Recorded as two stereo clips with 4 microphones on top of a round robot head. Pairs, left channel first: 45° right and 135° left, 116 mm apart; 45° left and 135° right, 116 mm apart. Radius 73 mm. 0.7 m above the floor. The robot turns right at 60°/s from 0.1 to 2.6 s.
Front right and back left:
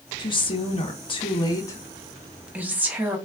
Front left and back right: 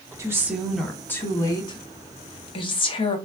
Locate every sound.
0.2 s a woman speaking: 80° right, 0.8 m; by 3.2 s 65° left, 0.8 m